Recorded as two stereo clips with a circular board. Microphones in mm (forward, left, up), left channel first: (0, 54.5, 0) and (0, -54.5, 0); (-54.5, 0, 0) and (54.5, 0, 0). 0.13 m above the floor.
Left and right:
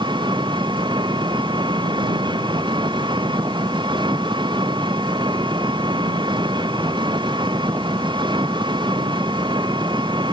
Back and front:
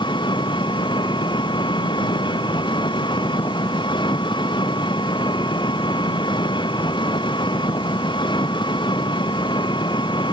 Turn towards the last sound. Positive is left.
turn(degrees=-135)